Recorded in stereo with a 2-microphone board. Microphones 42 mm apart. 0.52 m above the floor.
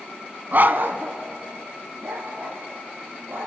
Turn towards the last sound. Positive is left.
turn(degrees=-70)  # may be behind; listen again after turning